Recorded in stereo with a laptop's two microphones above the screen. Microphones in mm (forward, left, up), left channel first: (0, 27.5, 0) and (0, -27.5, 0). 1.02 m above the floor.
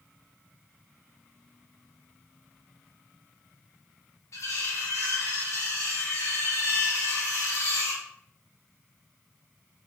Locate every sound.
4.3 s cutlery clinking: 65° left (ahead or behind), 0.7 m